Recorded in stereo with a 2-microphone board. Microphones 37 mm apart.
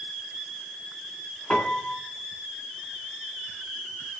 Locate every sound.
1.5 s a piano: 40° left (ahead or behind), 2 m